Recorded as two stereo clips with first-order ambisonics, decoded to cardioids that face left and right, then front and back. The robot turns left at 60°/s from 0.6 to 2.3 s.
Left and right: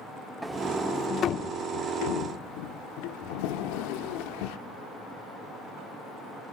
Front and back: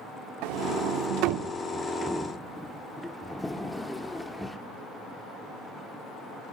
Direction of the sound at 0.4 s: 170° right.